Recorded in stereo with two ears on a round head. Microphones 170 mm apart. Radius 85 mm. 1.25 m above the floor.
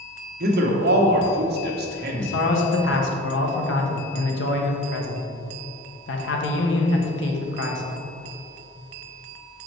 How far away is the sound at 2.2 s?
About 1.0 m.